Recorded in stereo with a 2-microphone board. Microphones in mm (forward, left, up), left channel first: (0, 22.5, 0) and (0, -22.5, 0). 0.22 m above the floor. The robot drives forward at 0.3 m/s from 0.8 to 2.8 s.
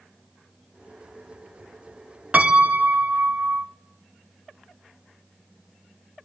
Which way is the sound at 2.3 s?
35° right (ahead or behind).